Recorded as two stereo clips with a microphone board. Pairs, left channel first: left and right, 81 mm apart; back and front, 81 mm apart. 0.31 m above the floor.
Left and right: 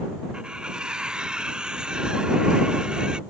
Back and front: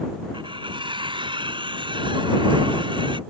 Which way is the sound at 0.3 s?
10° right.